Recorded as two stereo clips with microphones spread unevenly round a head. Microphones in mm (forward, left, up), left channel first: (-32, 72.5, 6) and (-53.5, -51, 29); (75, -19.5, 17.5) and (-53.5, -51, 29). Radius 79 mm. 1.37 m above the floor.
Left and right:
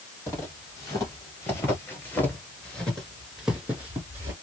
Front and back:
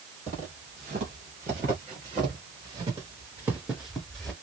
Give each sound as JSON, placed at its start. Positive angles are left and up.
{"t": 0.3, "sound": "footsteps", "azimuth_deg": 150, "distance_m": 3.0}